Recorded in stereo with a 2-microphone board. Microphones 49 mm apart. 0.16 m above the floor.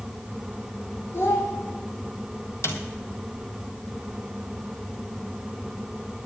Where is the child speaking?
50° left (ahead or behind), 5.5 m.